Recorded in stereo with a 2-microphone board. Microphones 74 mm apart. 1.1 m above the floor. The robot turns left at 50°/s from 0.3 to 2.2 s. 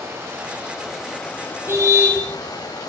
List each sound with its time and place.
0.0 s running water: 145° right, 6.5 m; by 2.9 s 120° left, 6.5 m
1.7 s a car horn: 35° right (ahead or behind), 9.5 m; by 2.2 s 10° right (ahead or behind), 9.5 m